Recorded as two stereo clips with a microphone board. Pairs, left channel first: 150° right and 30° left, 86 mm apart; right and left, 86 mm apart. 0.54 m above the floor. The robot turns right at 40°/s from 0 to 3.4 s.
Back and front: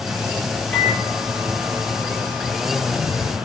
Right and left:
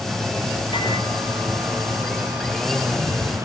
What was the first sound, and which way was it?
A microwave, 80° right.